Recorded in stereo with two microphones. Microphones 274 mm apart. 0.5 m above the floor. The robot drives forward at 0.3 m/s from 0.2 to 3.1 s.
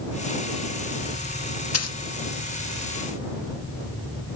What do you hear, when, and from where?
1.7 s a dropped coin: 60° left (ahead or behind), 0.6 m; by 2.0 s 70° left (ahead or behind), 0.6 m